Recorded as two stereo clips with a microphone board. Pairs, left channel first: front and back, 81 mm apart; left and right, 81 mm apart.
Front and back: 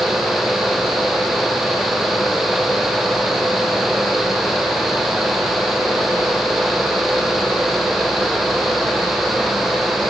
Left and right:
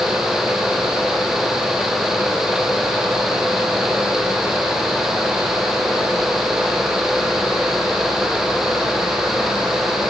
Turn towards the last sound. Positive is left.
No sound to turn to.